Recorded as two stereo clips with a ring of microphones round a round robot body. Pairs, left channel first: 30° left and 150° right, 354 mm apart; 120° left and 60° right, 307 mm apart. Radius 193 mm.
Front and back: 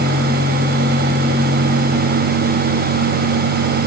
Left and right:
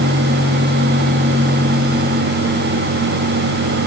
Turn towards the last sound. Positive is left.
No sound to turn to.